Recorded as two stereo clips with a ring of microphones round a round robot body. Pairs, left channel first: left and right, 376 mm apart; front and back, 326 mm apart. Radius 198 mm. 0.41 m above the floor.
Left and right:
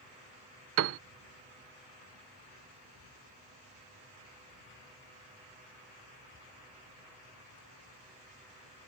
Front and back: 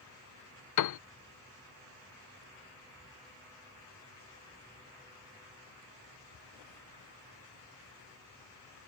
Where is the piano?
35° right.